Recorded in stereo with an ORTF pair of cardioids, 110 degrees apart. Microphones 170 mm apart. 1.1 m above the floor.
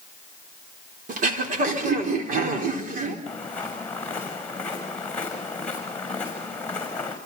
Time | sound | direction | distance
1.1 | throat clearing | 55° right | 4 m
3.3 | footsteps | 10° left | 6 m